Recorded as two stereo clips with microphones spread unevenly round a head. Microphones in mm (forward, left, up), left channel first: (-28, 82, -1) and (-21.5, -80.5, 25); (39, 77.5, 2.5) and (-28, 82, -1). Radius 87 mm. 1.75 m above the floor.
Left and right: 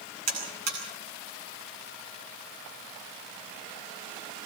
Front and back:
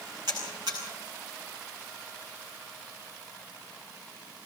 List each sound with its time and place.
0.3 s a buzzer: 115° right, 9.5 m